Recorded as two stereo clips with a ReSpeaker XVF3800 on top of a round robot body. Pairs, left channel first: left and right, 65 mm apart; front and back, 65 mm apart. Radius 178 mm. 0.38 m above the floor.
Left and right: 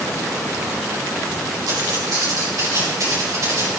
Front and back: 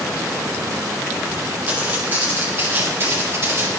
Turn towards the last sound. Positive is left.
turn(degrees=-130)